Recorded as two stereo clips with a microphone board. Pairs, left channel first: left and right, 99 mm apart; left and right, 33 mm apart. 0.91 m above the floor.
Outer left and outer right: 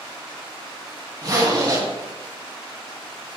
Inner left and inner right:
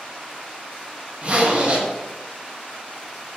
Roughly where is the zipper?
Right.